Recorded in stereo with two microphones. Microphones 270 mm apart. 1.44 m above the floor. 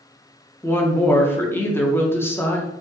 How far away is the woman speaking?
About 0.6 m.